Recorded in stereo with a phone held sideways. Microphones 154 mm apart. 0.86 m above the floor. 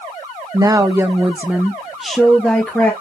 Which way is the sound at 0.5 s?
25° right (ahead or behind).